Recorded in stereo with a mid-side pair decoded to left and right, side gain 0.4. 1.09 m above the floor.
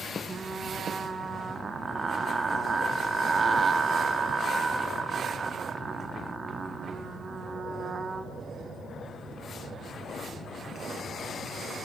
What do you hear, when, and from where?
0.3 s frying: 40° right, 2 m